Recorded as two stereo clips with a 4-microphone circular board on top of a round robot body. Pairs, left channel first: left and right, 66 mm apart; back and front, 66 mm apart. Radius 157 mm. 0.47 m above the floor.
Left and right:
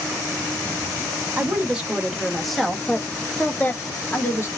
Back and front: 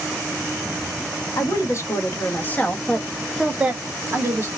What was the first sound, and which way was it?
A woman speaking, 160° right.